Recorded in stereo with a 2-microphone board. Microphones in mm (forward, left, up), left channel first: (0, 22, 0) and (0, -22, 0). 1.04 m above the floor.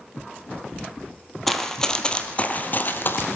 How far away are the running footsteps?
About 2.0 m.